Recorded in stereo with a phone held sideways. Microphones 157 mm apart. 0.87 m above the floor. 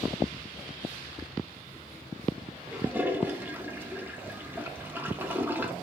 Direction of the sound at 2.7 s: 10° right (ahead or behind).